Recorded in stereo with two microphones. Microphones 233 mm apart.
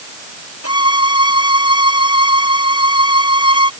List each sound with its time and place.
0.6 s a violin: 90° left